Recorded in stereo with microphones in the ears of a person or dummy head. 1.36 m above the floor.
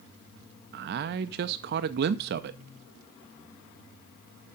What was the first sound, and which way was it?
A man speaking, 50° right (ahead or behind).